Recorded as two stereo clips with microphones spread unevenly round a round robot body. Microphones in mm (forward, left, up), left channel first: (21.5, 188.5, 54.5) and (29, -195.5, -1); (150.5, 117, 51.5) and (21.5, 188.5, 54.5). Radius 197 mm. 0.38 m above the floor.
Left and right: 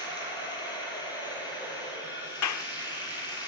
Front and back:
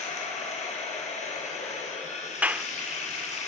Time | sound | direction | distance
0.0 | running water | 10° left | 7.5 m
2.4 | a clap | 75° left | 0.7 m